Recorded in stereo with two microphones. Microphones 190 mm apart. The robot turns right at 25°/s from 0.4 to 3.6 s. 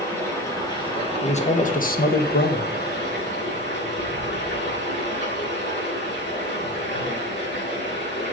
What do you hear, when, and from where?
0.0 s running water: 15° left, 5 m; by 8.3 s 95° left, 5 m
1.2 s a man speaking: 35° left, 1.2 m; by 2.7 s 75° left, 1.2 m